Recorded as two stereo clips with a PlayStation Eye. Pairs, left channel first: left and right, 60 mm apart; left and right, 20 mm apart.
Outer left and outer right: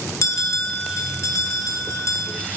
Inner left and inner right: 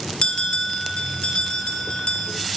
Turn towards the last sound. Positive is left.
turn(degrees=55)  # may be behind; listen again after turning